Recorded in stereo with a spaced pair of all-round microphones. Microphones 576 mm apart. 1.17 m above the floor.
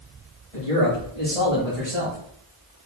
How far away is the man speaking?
About 1.9 m.